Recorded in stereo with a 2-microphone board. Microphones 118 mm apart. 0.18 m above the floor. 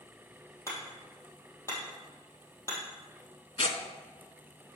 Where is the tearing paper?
60° left (ahead or behind), 0.7 m.